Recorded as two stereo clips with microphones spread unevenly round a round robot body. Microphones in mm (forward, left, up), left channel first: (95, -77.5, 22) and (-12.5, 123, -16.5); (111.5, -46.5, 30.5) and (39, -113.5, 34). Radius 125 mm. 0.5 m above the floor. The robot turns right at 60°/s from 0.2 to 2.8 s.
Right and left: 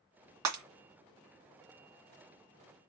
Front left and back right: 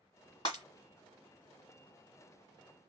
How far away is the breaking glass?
About 2.0 m.